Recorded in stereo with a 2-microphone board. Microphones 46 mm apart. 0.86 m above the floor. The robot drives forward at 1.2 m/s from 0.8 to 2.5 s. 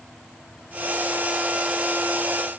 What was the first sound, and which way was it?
Only background noise.